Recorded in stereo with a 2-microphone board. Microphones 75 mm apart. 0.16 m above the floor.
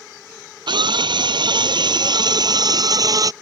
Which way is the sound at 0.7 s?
75° right (ahead or behind).